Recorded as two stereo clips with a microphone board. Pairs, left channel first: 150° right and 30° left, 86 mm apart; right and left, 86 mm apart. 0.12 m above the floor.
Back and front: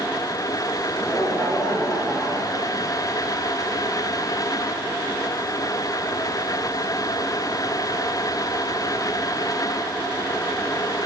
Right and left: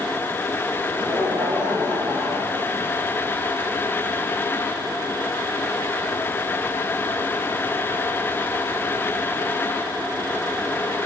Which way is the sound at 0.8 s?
125° left.